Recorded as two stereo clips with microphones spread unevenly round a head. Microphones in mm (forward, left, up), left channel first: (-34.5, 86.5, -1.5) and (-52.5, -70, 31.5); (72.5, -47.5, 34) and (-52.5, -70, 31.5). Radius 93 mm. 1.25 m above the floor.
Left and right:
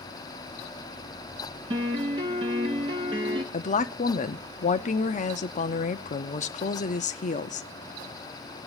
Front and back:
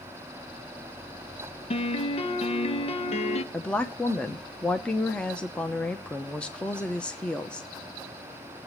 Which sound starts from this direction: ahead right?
A piano, at 1.7 s.